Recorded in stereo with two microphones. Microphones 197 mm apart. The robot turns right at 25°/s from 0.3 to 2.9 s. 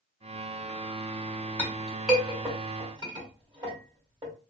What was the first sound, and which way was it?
A clink, 10° left (ahead or behind).